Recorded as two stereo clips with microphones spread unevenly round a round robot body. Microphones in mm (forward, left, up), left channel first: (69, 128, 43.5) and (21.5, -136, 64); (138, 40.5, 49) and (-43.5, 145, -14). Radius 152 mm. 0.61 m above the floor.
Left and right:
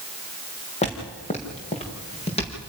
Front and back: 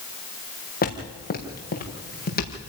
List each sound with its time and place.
0.8 s footsteps: 15° left, 4.5 m; by 2.7 s 10° left, 6 m